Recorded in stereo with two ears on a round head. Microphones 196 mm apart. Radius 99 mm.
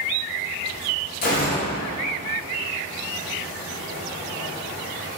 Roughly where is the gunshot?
Left.